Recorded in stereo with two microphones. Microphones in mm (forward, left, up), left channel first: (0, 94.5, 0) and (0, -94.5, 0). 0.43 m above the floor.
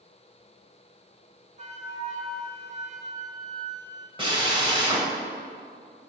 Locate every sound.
1.6 s a flute: 40° right (ahead or behind), 0.9 m
4.2 s a drill: 25° right (ahead or behind), 1.3 m